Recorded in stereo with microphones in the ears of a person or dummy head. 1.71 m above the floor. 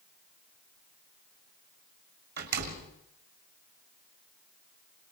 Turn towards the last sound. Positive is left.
turn(degrees=-45)  # may be behind; listen again after turning